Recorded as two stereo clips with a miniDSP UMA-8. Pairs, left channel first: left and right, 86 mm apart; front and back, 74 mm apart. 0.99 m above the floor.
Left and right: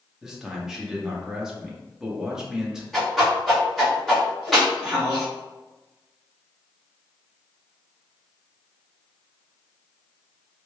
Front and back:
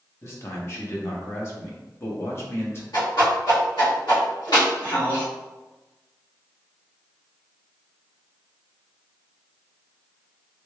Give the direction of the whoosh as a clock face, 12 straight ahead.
12 o'clock.